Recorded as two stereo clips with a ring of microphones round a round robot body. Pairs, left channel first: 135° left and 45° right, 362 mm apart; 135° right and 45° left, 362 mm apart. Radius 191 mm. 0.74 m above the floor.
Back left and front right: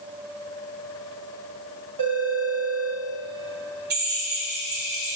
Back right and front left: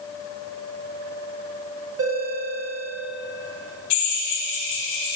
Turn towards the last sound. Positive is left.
turn(degrees=-110)